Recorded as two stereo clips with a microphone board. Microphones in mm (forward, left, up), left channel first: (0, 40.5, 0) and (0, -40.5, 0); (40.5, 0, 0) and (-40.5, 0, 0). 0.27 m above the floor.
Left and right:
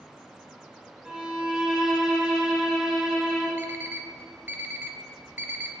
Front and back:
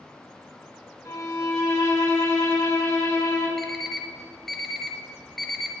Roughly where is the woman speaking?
I don't hear a woman speaking.